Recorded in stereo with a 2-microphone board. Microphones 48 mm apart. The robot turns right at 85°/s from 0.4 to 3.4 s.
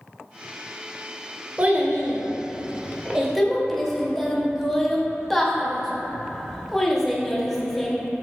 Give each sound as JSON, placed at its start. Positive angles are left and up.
{"t": 1.6, "sound": "a child speaking", "side_deg": -25, "distance_m": 0.6}